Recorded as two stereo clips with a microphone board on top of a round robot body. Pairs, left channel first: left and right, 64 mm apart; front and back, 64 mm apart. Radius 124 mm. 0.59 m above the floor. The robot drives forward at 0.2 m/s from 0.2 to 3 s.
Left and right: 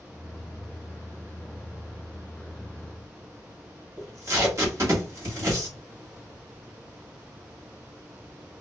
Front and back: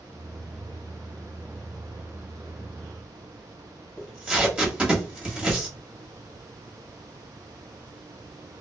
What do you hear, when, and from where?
4.0 s tape being pulled: 115° right, 1.5 m